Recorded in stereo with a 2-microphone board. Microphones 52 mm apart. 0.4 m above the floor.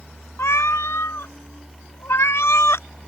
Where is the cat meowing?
65° left (ahead or behind).